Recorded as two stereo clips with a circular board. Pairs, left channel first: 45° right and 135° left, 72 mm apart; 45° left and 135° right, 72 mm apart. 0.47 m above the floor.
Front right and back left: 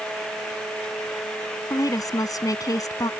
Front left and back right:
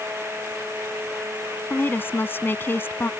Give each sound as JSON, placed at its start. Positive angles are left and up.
{"t": 1.7, "sound": "a woman speaking", "azimuth_deg": -15}